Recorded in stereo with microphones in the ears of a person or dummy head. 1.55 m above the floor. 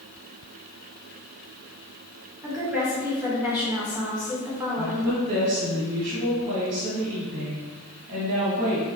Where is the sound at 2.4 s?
5° right (ahead or behind), 1.2 m.